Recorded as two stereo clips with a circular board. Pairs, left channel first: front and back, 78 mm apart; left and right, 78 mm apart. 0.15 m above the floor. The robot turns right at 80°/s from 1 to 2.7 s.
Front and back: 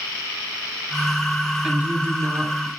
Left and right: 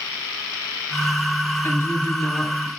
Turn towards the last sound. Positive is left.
turn(degrees=-170)